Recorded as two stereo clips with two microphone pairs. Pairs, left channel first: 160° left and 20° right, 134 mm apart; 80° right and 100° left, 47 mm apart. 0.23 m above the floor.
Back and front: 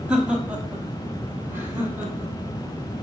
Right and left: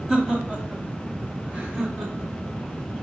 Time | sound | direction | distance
0.1 | laughter | 50° left | 1.0 m